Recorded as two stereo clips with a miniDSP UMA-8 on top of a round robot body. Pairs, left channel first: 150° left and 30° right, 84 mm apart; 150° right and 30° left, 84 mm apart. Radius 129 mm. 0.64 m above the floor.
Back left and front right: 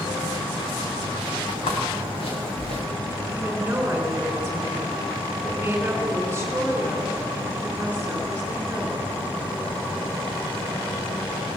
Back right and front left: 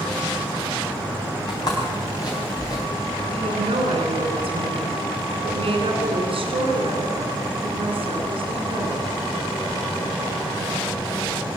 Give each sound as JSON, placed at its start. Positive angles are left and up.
{"t": 1.5, "sound": "footsteps", "azimuth_deg": 165, "distance_m": 6.0}
{"t": 3.2, "sound": "a woman speaking", "azimuth_deg": 40, "distance_m": 4.0}